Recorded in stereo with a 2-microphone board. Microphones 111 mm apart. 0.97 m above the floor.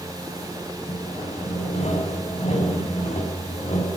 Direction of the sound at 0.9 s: 70° left (ahead or behind).